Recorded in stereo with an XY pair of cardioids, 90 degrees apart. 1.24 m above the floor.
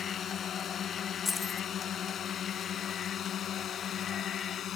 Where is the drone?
60° left; by 4.8 s 70° left.